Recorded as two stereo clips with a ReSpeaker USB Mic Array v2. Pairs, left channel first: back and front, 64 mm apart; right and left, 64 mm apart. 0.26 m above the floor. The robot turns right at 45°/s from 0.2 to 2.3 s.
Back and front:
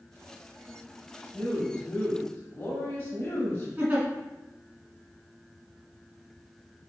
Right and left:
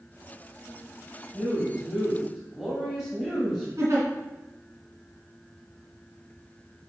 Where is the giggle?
65° left, 2 m.